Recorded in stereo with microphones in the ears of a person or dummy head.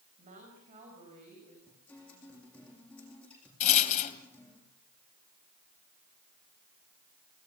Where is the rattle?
45° left (ahead or behind), 3 m.